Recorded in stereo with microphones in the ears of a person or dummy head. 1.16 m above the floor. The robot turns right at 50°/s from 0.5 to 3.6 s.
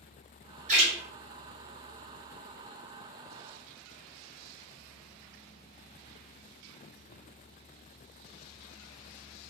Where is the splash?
35° right (ahead or behind), 1.0 m; by 0.9 s 45° right (ahead or behind), 1.0 m.